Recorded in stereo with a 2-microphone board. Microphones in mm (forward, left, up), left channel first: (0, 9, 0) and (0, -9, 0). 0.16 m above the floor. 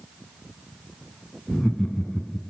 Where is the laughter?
30° left (ahead or behind), 1.7 m.